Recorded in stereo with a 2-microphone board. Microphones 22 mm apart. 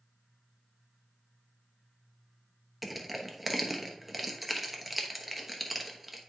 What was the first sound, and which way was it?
Crushing, 5° right (ahead or behind).